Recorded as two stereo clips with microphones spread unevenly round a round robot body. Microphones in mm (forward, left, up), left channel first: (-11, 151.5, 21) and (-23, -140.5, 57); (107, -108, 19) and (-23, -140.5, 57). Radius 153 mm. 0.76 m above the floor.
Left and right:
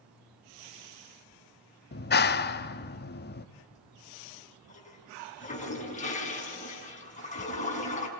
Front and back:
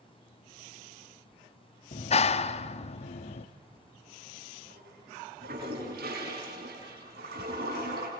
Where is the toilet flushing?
155° left, 4.5 m.